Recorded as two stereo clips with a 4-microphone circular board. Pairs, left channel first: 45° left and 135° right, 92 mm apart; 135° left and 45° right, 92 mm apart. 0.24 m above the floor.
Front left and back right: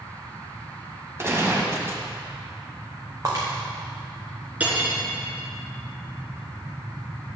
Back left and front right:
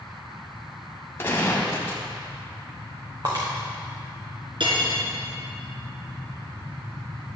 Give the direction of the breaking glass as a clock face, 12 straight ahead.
3 o'clock.